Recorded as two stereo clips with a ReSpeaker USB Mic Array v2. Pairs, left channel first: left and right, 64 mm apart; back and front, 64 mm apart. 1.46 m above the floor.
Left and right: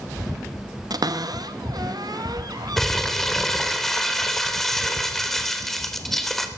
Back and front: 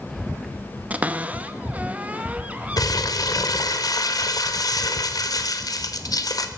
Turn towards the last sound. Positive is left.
turn(degrees=175)